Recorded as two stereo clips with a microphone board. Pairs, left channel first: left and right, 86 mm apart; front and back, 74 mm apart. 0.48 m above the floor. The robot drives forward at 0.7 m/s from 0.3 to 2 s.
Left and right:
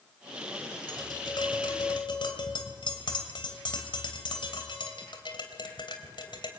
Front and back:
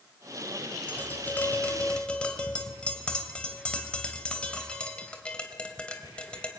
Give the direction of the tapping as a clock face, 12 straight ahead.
10 o'clock.